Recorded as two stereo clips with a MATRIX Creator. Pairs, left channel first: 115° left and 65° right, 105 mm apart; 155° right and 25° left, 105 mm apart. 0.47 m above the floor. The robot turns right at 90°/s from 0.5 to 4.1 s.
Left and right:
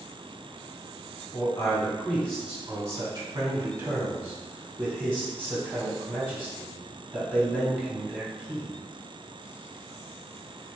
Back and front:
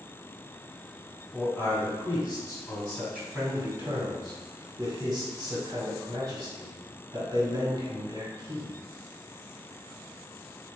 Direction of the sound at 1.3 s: 110° left.